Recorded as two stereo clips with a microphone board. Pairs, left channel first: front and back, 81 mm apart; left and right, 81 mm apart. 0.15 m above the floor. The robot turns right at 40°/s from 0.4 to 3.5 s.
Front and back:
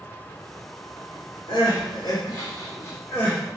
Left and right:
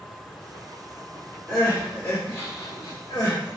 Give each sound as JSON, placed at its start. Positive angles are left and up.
{"t": 1.5, "sound": "crying", "azimuth_deg": 0, "distance_m": 1.3}